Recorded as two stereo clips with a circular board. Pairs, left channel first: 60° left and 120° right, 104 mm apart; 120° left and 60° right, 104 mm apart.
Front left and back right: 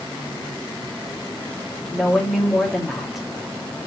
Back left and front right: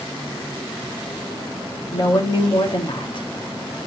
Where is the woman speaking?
155° left, 2 m.